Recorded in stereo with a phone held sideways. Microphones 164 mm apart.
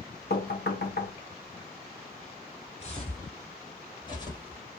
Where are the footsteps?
40° left (ahead or behind), 3 m; by 4.6 s 25° left (ahead or behind), 2.5 m.